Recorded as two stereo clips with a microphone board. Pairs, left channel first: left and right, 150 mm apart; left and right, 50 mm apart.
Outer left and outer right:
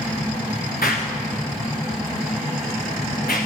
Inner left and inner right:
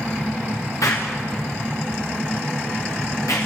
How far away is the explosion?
About 5.5 m.